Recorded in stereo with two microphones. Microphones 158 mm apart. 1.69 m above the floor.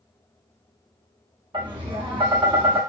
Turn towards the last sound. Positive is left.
turn(degrees=-30)  # may be behind; listen again after turning